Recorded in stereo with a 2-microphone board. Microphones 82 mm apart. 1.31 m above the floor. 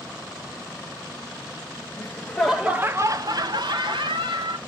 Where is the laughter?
25° left (ahead or behind), 0.7 m; by 4.6 s 75° right (ahead or behind), 1.4 m.